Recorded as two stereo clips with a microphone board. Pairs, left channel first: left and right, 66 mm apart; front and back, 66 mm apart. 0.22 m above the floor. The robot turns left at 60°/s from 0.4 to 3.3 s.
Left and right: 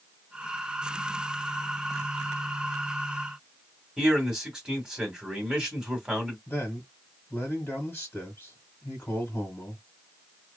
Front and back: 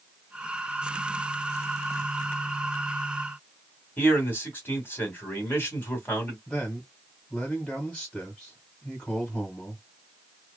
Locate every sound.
4.0 s a man speaking: 25° right, 1.6 m
6.5 s a man speaking: 70° left, 1.4 m